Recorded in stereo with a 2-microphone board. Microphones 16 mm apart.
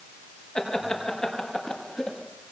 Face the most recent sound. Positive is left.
turn(degrees=70)  # may be behind; listen again after turning